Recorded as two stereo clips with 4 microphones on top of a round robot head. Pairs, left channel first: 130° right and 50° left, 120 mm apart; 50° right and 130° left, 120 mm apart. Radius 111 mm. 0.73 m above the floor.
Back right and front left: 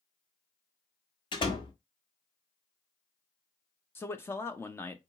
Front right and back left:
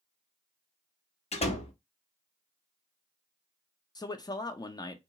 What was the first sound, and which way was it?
A door slam, 80° right.